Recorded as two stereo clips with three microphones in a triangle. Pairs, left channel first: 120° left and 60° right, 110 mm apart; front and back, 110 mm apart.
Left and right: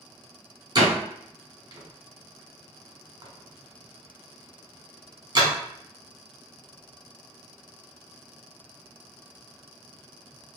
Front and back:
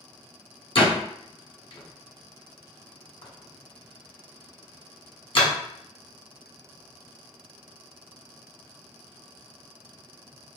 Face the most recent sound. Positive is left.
turn(degrees=-20)